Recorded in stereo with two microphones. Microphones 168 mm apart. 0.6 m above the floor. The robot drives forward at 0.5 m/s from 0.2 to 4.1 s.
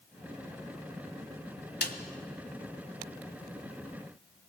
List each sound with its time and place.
1.8 s a snare drum: 75° left (ahead or behind), 1.4 m